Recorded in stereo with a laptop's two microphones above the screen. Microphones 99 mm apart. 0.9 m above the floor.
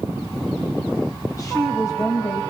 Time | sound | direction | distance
1.3 | a woman speaking | 35° left (ahead or behind) | 4.5 m